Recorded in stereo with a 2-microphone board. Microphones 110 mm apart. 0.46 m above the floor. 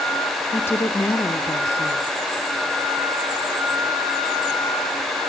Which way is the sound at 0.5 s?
20° left (ahead or behind).